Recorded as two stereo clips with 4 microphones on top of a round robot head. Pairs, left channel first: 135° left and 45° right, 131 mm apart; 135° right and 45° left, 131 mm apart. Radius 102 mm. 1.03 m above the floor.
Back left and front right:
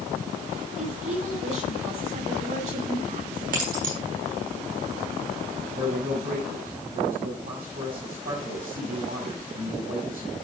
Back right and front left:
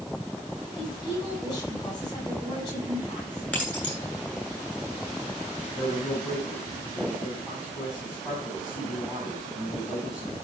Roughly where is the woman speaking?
Right.